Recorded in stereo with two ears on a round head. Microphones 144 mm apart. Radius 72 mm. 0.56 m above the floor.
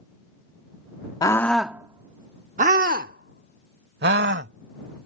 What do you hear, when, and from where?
1.2 s a scream: 25° left (ahead or behind); by 5.1 s 75° right (ahead or behind)